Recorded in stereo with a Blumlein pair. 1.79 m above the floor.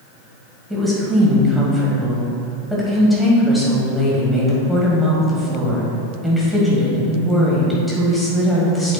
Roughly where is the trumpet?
No trumpet in this recording.